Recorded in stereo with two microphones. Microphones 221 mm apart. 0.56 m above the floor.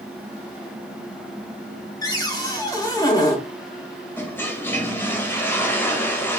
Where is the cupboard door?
15° left (ahead or behind), 0.6 m.